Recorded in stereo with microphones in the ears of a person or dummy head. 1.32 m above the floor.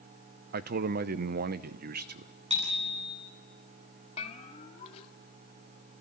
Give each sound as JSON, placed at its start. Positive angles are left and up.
{"t": 0.5, "sound": "a man speaking", "side_deg": -45, "distance_m": 0.8}
{"t": 2.5, "sound": "a bicycle bell", "side_deg": -25, "distance_m": 9.0}
{"t": 4.2, "sound": "a bell", "side_deg": 35, "distance_m": 2.0}